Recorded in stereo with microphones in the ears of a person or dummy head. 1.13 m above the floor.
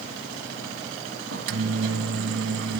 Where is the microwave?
70° right (ahead or behind), 1.4 m.